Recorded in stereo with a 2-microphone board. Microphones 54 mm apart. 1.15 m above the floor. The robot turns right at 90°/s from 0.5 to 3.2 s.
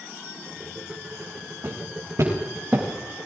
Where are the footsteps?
55° right (ahead or behind), 6.5 m; by 2.8 s 10° right (ahead or behind), 7.5 m.